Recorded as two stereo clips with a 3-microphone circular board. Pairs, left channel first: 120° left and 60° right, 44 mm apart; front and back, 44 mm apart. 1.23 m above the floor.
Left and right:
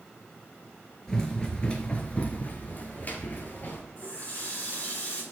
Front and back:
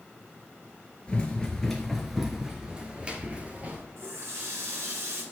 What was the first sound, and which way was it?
Running footsteps, 50° left.